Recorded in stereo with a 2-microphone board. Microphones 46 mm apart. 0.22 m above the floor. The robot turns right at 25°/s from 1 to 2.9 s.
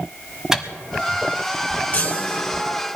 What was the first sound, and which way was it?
A microwave, 10° right (ahead or behind).